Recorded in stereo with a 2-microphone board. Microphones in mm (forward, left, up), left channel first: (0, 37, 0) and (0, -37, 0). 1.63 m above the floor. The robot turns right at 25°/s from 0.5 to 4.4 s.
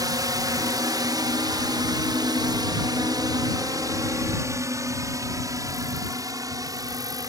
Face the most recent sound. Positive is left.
turn(degrees=-55)  # may be behind; listen again after turning